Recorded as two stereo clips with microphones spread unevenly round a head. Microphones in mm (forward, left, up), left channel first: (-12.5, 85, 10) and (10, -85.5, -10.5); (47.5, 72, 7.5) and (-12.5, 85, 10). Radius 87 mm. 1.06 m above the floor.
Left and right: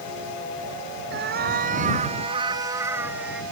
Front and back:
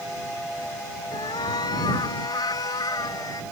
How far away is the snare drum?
I don't hear a snare drum.